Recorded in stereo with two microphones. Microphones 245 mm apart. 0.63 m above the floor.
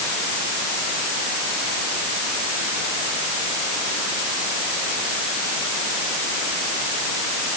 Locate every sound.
Only background noise.